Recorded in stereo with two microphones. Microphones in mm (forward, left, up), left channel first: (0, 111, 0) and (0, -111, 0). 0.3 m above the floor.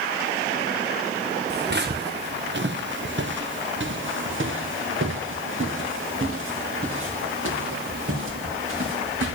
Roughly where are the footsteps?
Right.